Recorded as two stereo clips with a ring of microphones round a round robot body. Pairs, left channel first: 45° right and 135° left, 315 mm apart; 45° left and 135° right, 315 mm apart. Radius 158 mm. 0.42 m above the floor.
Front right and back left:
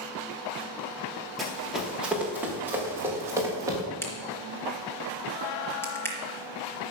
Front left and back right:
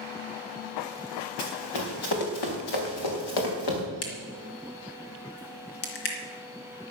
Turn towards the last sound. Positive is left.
turn(degrees=40)